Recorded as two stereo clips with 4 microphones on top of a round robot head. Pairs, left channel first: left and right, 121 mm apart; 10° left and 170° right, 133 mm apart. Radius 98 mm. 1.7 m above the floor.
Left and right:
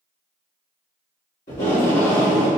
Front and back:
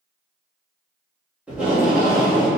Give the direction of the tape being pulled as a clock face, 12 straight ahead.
8 o'clock.